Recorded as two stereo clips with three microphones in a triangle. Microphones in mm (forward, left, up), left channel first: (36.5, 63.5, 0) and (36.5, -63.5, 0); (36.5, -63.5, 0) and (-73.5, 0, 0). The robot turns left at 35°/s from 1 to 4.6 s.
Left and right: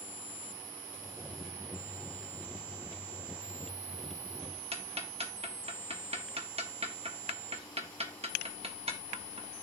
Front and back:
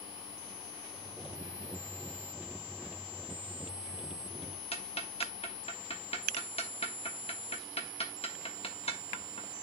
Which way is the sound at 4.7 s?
60° right.